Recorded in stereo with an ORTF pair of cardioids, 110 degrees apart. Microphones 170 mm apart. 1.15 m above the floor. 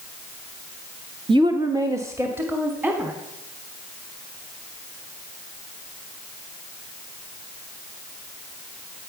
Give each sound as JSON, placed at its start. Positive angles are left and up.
{"t": 1.3, "sound": "a woman speaking", "azimuth_deg": -30, "distance_m": 0.8}